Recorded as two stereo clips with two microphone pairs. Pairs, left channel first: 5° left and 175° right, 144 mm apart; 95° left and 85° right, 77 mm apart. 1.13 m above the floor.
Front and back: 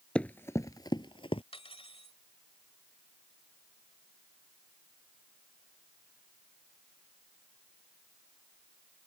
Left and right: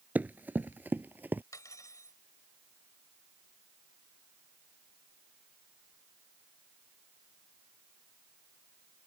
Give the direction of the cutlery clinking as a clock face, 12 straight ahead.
10 o'clock.